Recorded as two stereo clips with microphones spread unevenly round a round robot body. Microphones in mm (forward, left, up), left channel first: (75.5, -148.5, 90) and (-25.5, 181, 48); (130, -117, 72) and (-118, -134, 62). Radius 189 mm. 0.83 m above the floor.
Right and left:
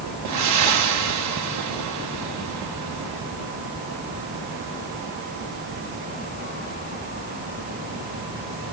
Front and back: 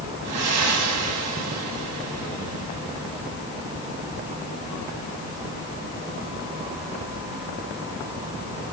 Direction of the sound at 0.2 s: 150° left.